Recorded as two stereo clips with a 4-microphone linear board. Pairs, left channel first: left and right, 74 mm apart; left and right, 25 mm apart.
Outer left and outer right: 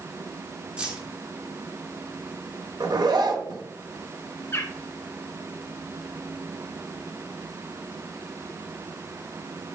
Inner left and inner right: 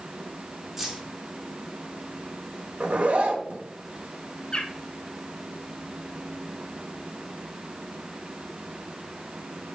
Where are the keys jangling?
15° right (ahead or behind), 1.7 m.